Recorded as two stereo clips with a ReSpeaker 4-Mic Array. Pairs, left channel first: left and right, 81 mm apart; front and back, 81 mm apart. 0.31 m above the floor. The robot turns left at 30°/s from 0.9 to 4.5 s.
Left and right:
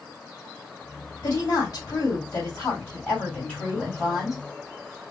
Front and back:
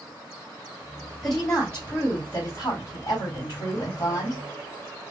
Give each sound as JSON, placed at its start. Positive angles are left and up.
{"t": 1.2, "sound": "a woman speaking", "azimuth_deg": 85, "distance_m": 2.0}